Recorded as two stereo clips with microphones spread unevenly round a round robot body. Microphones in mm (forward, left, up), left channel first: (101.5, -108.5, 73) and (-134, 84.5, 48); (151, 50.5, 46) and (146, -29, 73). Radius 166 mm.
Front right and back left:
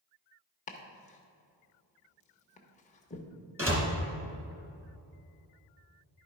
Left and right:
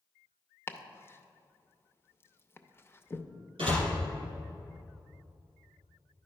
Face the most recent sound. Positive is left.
turn(degrees=-140)